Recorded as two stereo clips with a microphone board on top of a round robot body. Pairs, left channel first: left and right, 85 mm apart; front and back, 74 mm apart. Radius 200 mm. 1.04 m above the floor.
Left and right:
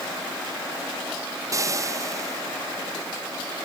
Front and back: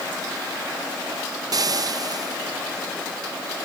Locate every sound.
1.5 s frying: 145° right